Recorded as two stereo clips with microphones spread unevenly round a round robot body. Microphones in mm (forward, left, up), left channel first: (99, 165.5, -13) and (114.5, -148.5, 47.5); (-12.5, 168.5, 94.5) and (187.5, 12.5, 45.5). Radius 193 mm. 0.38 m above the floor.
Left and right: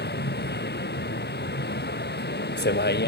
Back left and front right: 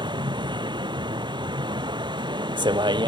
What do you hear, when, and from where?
0.0 s a vehicle: 35° left